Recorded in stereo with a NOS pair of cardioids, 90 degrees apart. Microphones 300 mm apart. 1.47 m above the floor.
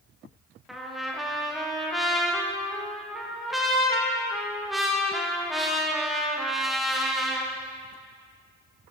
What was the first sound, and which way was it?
A trumpet, straight ahead.